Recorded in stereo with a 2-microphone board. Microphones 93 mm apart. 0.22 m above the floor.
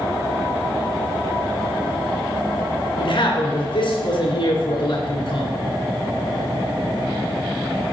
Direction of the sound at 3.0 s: 60° left (ahead or behind).